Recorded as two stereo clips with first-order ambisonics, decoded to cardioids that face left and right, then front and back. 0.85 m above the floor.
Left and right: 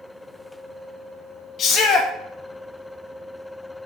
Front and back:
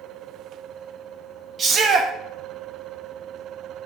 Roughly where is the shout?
Behind left.